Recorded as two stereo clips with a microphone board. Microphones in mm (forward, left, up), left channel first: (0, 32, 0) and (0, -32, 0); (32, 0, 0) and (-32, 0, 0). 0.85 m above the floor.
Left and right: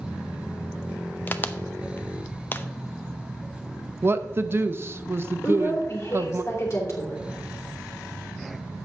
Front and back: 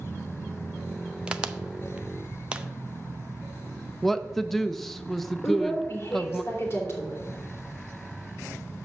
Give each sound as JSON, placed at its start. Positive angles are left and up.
{"t": 1.3, "sound": "a crack", "azimuth_deg": 120, "distance_m": 0.6}
{"t": 4.0, "sound": "a woman speaking", "azimuth_deg": -85, "distance_m": 0.6}
{"t": 5.4, "sound": "a woman speaking", "azimuth_deg": 45, "distance_m": 2.5}